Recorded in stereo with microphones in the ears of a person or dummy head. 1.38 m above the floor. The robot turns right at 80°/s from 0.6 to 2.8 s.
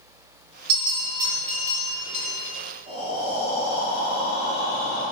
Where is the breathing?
25° right (ahead or behind), 2 m.